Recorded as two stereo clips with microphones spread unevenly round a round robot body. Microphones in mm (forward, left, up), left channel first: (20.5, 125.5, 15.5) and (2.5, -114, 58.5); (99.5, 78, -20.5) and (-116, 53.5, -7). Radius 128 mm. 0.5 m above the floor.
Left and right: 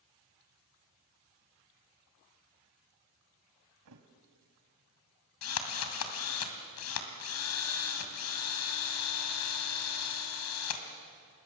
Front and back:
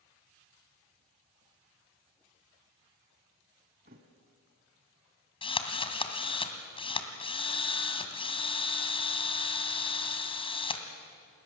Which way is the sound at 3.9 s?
115° right.